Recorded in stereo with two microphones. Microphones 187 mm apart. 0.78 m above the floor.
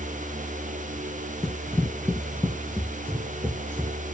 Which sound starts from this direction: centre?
Running footsteps, at 1.4 s.